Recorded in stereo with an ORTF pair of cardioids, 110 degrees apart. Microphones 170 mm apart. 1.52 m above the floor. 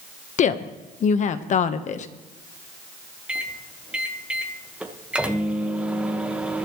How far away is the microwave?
About 1.5 m.